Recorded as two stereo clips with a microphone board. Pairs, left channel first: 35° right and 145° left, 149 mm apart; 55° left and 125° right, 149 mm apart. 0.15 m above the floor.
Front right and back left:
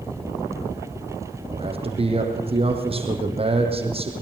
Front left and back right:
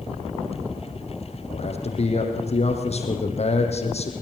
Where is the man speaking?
100° left, 4 m.